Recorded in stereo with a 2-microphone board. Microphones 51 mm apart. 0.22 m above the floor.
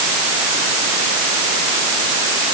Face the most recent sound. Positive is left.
No sound to turn to.